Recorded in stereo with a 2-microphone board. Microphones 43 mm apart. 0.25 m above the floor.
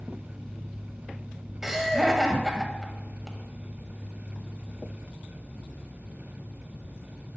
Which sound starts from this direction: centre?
Laughter, at 1.6 s.